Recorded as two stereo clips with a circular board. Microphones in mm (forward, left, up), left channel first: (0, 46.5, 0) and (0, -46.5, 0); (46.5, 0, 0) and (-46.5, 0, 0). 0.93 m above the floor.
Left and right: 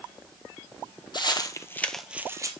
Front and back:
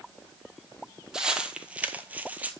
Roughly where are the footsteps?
Left.